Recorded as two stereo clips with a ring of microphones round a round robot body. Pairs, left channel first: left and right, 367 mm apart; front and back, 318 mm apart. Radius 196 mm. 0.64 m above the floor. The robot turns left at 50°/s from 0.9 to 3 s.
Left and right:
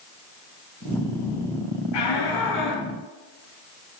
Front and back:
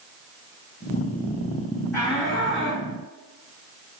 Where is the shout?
85° left, 5.5 m; by 2.9 s 40° left, 5.5 m.